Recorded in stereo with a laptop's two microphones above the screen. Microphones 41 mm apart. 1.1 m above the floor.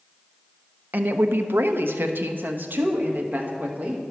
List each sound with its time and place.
0.9 s a woman speaking: 50° right (ahead or behind), 0.5 m; by 4.0 s 45° right (ahead or behind), 2 m